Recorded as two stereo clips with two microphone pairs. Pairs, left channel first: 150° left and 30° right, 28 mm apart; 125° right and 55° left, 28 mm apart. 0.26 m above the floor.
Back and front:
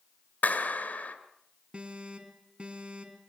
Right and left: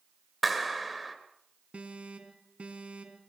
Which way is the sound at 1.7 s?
15° left.